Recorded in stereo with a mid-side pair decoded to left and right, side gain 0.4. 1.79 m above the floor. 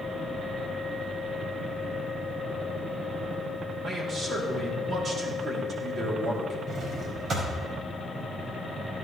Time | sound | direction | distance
3.8 | a man speaking | 50° right | 4.5 m
6.7 | a drawer | 60° right | 4 m